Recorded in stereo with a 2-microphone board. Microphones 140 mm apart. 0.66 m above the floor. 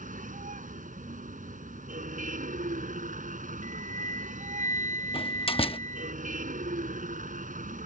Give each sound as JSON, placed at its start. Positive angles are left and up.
{"t": 0.0, "sound": "a vehicle", "side_deg": -75}
{"t": 3.6, "sound": "a flute", "side_deg": -65}
{"t": 5.1, "sound": "a door slam", "side_deg": 40}